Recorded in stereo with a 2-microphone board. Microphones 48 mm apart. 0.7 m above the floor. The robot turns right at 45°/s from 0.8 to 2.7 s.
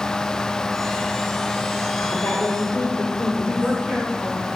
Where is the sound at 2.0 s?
100° left, 2 m; by 3.8 s 130° left, 2 m.